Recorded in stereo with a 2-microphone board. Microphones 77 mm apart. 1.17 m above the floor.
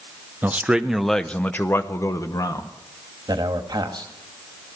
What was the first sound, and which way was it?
A man speaking, 25° right (ahead or behind).